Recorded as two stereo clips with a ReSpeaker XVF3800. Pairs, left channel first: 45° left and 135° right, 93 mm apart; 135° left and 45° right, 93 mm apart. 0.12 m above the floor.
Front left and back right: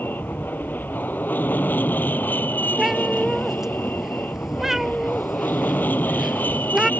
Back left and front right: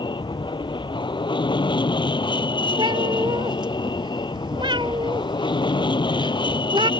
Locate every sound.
0.0 s an aircraft: 115° left
2.8 s a cat meowing: 50° right